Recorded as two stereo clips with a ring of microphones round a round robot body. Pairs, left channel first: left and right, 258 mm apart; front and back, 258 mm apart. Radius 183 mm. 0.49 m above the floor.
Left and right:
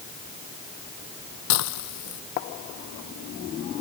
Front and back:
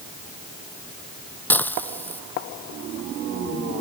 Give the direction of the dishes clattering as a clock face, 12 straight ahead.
9 o'clock.